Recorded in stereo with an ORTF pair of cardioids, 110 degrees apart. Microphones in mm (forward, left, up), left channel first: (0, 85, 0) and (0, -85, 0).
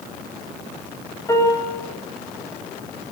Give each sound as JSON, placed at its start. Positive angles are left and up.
{"t": 1.3, "sound": "a piano", "azimuth_deg": 20, "distance_m": 6.5}